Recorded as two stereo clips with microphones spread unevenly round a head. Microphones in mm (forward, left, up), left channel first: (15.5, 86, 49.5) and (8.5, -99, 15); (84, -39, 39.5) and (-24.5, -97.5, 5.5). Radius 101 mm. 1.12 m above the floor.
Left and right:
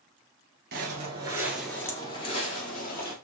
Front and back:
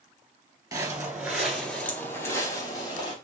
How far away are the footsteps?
About 1.2 m.